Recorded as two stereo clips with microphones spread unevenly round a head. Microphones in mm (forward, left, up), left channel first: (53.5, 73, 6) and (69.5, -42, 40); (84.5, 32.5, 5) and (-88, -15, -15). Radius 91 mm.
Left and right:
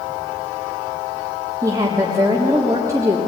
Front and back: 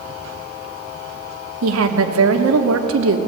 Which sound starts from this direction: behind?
A woman speaking, at 1.6 s.